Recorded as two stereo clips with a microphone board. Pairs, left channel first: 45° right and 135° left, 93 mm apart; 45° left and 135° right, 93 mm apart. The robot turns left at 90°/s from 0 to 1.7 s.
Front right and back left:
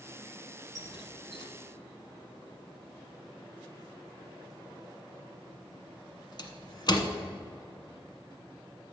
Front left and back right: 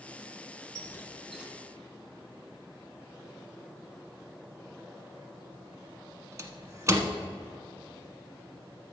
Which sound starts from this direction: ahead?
A squeak, at 0.8 s.